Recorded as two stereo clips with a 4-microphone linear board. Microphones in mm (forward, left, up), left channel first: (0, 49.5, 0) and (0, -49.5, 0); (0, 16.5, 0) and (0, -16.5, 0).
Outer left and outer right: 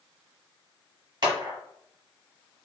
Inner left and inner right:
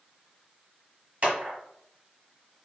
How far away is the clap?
About 1.4 m.